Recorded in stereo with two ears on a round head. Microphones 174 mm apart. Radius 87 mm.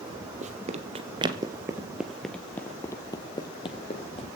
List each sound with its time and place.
0.4 s running footsteps: 40° right (ahead or behind), 2 m; by 4.3 s 30° left (ahead or behind), 3 m